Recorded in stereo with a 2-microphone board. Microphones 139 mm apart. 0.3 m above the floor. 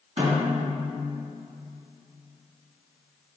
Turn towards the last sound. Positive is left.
turn(degrees=-60)  # may be behind; listen again after turning